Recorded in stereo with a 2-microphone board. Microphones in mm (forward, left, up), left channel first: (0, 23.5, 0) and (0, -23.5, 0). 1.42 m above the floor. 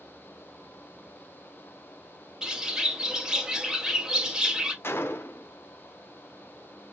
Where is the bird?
15° right (ahead or behind), 0.8 m.